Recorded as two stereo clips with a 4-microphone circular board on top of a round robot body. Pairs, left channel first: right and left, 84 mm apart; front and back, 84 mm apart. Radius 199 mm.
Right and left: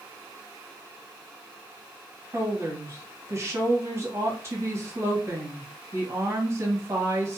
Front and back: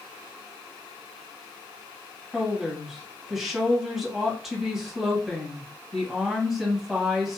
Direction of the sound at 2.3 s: 100° left.